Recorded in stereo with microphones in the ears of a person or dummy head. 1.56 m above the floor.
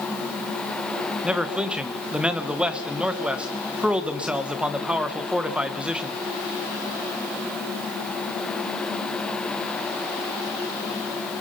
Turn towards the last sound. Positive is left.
turn(degrees=0)  # may be behind; listen again after turning